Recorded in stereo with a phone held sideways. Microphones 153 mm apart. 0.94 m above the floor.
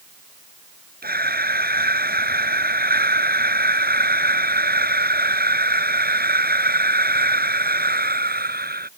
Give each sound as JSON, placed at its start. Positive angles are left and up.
{"t": 1.0, "sound": "breathing", "side_deg": -90}